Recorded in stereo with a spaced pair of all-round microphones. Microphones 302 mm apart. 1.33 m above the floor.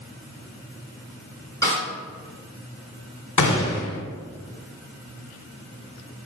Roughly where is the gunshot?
Left.